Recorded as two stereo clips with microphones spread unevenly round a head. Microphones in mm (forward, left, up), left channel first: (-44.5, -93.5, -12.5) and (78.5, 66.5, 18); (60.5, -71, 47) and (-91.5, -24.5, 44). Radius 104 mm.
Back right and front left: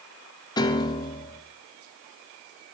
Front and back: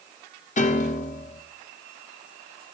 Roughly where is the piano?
Ahead right.